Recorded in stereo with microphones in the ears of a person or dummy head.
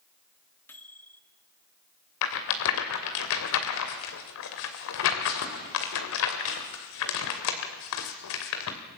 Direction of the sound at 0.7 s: 10° left (ahead or behind).